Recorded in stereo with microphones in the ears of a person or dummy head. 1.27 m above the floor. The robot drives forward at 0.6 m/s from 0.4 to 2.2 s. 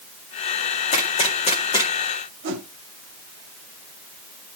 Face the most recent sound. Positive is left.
turn(degrees=-50)  # may be behind; listen again after turning